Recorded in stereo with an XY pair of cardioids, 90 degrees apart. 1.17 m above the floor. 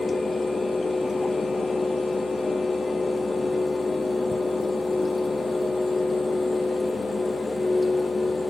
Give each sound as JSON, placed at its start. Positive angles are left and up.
{"t": 0.0, "sound": "a fan", "azimuth_deg": 30, "distance_m": 0.8}